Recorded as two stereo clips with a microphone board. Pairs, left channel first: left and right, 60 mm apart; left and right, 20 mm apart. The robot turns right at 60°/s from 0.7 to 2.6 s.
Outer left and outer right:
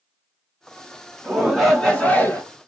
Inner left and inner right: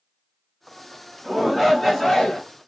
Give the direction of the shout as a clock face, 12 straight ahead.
1 o'clock.